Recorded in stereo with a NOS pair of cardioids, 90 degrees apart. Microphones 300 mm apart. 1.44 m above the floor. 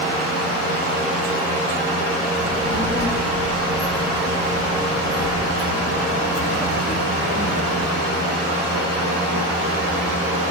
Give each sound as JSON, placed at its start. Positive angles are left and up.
{"t": 2.4, "sound": "a child speaking", "azimuth_deg": 50, "distance_m": 1.9}